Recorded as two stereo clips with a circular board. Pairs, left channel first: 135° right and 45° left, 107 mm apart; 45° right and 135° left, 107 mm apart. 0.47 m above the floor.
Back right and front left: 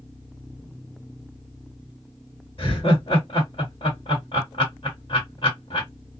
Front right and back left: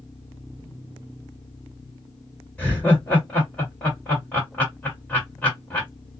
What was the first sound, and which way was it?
Laughter, 115° right.